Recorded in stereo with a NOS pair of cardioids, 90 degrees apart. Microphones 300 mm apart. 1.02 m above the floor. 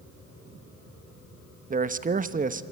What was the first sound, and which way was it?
A man speaking, 30° right.